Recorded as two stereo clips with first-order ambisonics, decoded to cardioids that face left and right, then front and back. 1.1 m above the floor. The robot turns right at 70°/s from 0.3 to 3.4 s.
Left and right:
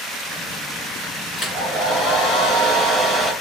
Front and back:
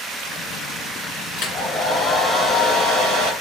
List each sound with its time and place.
1.4 s a hair dryer: 35° left, 1.6 m; by 3.3 s 170° left, 1.6 m